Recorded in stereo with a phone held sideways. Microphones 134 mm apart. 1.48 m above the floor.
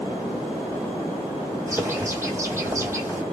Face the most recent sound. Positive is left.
turn(degrees=-20)  # may be behind; listen again after turning